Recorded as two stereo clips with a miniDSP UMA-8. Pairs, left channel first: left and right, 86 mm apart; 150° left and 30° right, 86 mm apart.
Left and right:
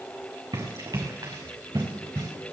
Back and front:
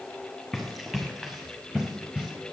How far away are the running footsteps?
About 5 m.